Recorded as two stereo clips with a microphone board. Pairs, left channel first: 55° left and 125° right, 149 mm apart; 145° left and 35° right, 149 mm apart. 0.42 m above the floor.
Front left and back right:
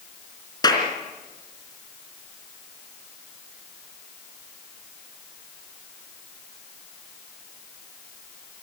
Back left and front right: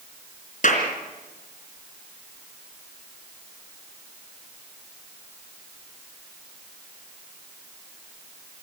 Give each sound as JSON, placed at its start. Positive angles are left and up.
{"t": 0.6, "sound": "a clap", "azimuth_deg": 115, "distance_m": 3.5}